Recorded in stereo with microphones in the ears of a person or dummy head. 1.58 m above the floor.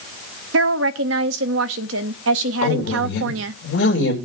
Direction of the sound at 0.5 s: 75° right (ahead or behind).